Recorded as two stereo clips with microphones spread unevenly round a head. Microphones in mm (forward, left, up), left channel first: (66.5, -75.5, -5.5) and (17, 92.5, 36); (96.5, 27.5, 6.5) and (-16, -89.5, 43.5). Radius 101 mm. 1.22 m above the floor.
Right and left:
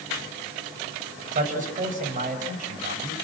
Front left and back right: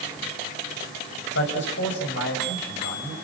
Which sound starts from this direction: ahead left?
A man speaking, at 1.3 s.